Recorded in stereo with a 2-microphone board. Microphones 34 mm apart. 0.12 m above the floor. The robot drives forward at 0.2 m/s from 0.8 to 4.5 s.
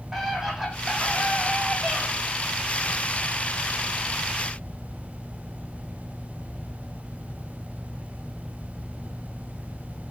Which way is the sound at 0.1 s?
10° right (ahead or behind).